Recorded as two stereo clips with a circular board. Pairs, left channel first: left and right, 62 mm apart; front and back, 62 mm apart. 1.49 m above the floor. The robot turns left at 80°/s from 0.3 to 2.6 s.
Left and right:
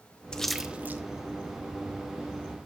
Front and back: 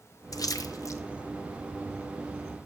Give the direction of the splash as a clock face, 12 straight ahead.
11 o'clock.